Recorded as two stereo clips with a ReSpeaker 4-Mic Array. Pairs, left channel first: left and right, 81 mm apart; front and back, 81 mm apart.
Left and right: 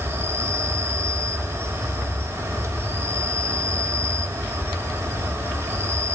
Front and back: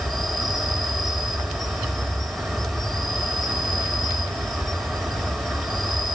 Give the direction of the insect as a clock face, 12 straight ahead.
3 o'clock.